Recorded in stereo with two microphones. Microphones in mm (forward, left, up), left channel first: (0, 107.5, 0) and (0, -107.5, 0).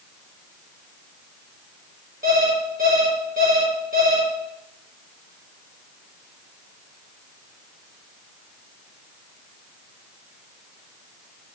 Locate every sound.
2.2 s an alarm clock: 40° right (ahead or behind), 4.5 m